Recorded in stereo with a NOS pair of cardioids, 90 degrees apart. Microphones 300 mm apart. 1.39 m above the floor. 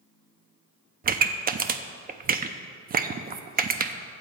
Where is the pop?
30° right, 0.5 m.